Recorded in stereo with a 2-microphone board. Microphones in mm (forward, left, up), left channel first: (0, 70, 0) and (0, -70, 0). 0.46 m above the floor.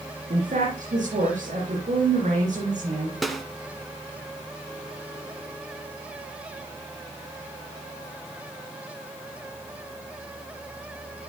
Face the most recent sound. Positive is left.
turn(degrees=0)  # may be behind; listen again after turning